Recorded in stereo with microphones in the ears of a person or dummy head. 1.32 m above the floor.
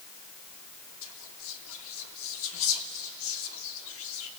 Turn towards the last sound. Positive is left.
turn(degrees=65)  # may be behind; listen again after turning